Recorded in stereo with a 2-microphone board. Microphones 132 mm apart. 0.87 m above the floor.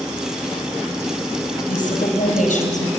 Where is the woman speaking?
85° left, 4.5 m; by 2.9 s 75° left (ahead or behind), 4 m.